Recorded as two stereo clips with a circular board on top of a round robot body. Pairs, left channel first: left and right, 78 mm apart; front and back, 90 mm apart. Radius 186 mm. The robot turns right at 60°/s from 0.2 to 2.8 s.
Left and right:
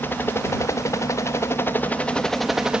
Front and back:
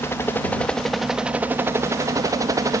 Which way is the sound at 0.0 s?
45° left.